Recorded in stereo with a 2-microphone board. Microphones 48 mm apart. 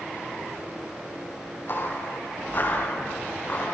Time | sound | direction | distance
1.7 | footsteps | 45° left (ahead or behind) | 6.5 m